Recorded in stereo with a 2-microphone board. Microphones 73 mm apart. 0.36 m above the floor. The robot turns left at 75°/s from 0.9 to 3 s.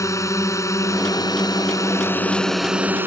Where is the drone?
125° left; by 3.1 s 30° right.